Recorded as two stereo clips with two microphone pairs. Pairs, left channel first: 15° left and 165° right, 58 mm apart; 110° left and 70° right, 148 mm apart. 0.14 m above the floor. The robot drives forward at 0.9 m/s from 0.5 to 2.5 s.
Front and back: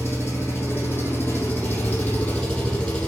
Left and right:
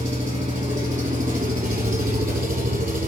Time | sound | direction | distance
0.0 | an engine running | 35° right | 4 m